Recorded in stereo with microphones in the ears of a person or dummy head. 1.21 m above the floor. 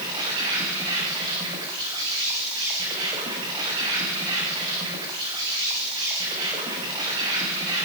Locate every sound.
0.0 s an insect: 30° right (ahead or behind), 9 m